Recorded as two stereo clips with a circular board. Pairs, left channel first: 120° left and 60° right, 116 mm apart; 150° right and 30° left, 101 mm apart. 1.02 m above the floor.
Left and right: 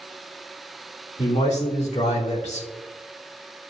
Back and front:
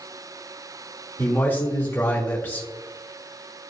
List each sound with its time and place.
1.2 s a man speaking: 140° left, 2.5 m